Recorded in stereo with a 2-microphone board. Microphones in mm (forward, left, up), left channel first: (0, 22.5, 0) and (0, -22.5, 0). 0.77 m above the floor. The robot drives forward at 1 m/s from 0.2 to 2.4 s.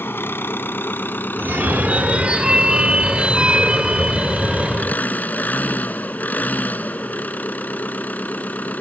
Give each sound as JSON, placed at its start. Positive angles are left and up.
{"t": 0.0, "sound": "an engine running", "side_deg": 60}
{"t": 1.4, "sound": "a phone ringing", "side_deg": -60}